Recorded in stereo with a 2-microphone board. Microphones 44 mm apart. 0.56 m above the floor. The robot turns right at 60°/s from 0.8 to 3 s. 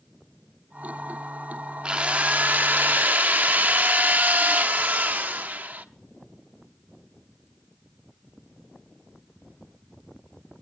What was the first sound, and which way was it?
A drill, 150° right.